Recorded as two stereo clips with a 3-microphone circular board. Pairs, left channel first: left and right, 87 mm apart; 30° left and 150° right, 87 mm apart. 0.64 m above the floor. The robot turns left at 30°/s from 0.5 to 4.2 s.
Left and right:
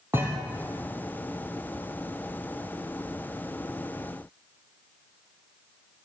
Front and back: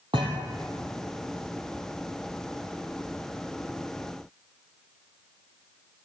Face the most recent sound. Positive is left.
turn(degrees=95)